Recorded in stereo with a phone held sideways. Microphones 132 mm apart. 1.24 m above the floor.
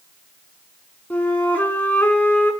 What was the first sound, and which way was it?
A flute, 10° left (ahead or behind).